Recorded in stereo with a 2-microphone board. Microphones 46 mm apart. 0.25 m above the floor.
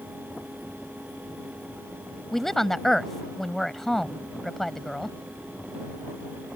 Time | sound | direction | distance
2.3 | a woman speaking | 5° left (ahead or behind) | ?